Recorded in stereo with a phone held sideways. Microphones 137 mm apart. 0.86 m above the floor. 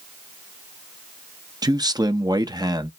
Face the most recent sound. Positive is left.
turn(degrees=-30)  # may be behind; listen again after turning